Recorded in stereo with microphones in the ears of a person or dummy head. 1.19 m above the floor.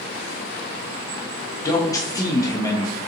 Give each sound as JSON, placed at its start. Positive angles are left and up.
{"t": 1.6, "sound": "a man speaking", "side_deg": 20, "distance_m": 0.7}